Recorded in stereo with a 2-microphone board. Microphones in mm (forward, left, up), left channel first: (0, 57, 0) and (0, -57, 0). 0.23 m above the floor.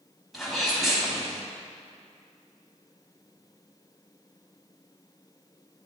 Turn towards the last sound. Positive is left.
turn(degrees=0)  # may be behind; listen again after turning